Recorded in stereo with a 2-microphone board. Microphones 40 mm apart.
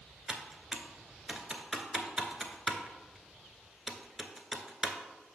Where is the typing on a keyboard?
10° right (ahead or behind), 0.7 m.